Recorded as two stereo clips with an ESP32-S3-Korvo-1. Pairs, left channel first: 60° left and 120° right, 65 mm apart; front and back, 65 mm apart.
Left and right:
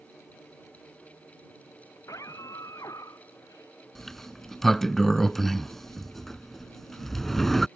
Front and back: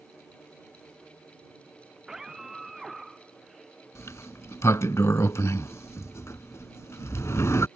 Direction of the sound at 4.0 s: 25° right.